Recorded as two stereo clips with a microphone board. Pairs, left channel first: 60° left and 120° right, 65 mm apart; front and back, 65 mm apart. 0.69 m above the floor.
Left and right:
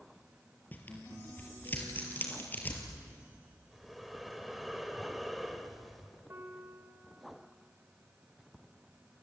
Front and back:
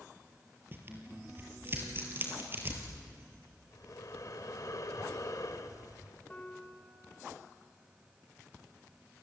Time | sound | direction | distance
0.7 | tearing paper | 125° left | 4 m
3.7 | breathing | 30° right | 1.7 m
6.3 | a piano | 70° right | 3 m